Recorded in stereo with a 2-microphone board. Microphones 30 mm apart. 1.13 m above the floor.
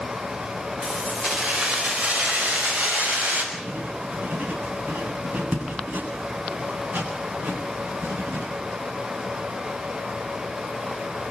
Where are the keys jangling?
25° right (ahead or behind), 3.5 m; by 3.4 s 55° right (ahead or behind), 6 m.